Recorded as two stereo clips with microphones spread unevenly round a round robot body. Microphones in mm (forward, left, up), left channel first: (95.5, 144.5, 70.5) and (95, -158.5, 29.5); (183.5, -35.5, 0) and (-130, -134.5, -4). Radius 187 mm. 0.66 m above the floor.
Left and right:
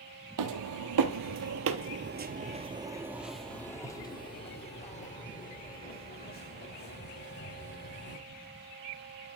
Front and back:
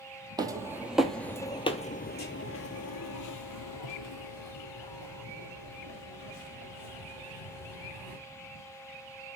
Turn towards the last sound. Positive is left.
turn(degrees=40)